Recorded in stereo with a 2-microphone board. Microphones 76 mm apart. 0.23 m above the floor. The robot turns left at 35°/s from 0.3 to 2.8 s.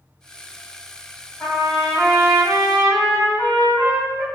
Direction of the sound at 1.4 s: 25° left (ahead or behind).